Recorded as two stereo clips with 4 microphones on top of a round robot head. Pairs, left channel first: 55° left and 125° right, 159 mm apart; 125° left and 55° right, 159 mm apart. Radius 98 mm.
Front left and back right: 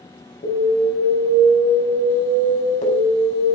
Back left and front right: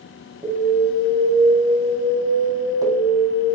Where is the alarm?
10° left, 6 m.